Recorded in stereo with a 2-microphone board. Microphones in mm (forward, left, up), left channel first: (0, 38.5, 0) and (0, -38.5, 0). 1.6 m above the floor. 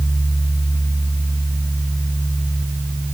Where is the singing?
I don't hear singing.